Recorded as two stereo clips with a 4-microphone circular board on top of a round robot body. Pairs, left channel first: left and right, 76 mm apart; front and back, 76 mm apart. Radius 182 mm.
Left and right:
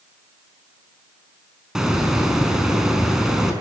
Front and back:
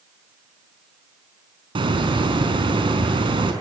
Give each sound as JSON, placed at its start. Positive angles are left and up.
{"t": 1.8, "sound": "a hiss", "azimuth_deg": -175, "distance_m": 5.0}